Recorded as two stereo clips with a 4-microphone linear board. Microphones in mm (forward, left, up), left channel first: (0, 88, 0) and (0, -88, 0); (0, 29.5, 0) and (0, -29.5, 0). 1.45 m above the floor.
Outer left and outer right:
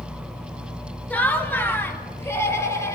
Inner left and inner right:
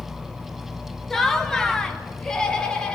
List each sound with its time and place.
1.1 s laughter: 10° left (ahead or behind), 2 m; by 3.0 s 15° left (ahead or behind), 3 m